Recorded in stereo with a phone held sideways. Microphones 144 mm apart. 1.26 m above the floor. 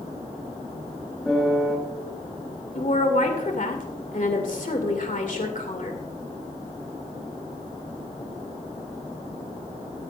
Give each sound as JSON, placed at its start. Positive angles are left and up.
{"t": 1.2, "sound": "a piano", "side_deg": 5, "distance_m": 4.0}
{"t": 2.8, "sound": "a woman speaking", "side_deg": 60, "distance_m": 2.0}